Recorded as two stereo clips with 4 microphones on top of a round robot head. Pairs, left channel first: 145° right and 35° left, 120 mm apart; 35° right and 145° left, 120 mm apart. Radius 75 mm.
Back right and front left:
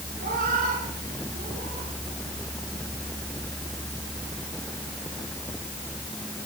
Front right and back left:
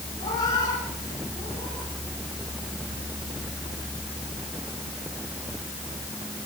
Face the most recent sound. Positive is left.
turn(degrees=35)